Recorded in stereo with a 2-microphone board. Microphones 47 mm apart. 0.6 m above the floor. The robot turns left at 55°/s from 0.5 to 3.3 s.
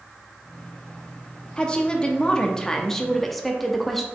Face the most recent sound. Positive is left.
turn(degrees=5)  # may be behind; listen again after turning